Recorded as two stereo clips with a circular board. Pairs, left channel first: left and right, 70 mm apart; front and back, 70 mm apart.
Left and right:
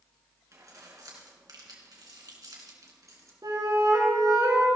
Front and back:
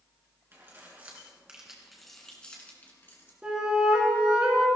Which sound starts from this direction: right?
A flute, at 3.4 s.